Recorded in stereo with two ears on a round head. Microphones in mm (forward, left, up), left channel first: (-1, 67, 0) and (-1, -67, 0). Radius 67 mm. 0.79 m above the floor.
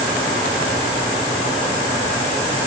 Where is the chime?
I don't hear a chime.